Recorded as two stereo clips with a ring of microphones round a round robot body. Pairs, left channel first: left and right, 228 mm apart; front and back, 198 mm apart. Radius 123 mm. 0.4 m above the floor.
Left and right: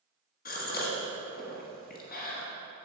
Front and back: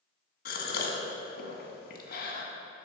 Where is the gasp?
40° left, 1.3 m.